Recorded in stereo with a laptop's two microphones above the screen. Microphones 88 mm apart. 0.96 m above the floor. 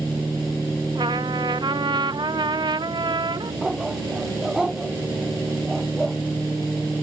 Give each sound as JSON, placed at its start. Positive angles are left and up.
{"t": 0.9, "sound": "a trumpet", "side_deg": -60}
{"t": 3.6, "sound": "a dog barking", "side_deg": -5}